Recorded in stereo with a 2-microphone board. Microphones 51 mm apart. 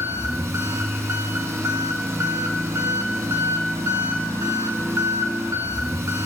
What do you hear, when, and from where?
0.0 s an engine running: 80° right, 1.3 m